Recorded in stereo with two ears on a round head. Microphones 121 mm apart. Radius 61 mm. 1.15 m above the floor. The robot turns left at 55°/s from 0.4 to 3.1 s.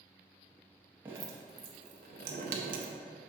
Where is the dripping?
15° right (ahead or behind), 0.7 m; by 2.9 s 60° right (ahead or behind), 0.7 m.